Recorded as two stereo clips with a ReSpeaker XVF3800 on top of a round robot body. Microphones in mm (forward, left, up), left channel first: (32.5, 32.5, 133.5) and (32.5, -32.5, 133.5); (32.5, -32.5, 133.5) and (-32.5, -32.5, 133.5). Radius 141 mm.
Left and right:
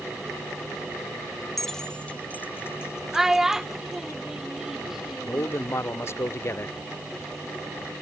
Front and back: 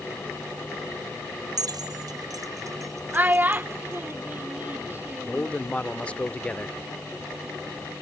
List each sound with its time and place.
1.6 s keys jangling: straight behind; by 4.1 s 125° left
3.1 s a child speaking: 165° right
5.2 s a man speaking: 65° left